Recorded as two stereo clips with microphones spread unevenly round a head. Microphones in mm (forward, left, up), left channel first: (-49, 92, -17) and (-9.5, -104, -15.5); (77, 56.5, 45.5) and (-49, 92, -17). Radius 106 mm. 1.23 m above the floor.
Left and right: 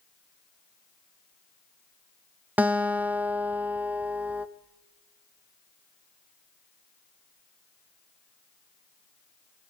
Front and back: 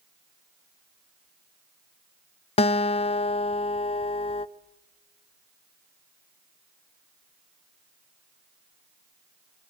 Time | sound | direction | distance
2.6 | a guitar | 5° left | 0.5 m